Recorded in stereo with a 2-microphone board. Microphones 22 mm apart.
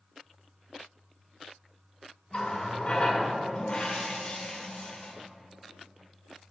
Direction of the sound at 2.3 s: 55° left (ahead or behind).